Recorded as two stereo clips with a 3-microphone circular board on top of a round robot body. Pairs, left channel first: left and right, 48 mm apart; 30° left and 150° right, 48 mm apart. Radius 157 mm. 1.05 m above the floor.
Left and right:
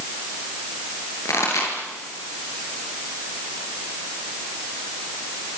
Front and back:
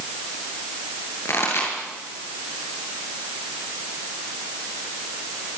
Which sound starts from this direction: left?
A pop, at 1.2 s.